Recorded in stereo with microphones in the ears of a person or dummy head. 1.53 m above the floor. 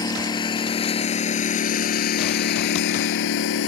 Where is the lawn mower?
20° left (ahead or behind); by 3.7 s 70° left (ahead or behind).